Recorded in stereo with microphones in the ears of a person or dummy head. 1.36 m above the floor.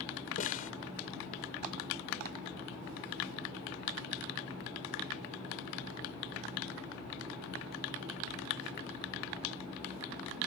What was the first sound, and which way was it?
A snare drum, 45° left (ahead or behind).